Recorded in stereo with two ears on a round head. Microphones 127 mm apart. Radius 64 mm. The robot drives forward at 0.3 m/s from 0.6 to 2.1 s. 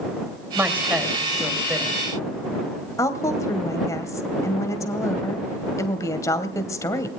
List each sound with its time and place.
0.6 s a woman speaking: 10° right (ahead or behind), 3 m
3.0 s a woman speaking: 20° left (ahead or behind), 2 m